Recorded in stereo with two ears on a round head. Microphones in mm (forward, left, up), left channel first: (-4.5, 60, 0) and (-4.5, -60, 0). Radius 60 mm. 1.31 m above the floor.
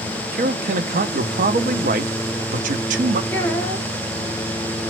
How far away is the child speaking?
About 1.2 m.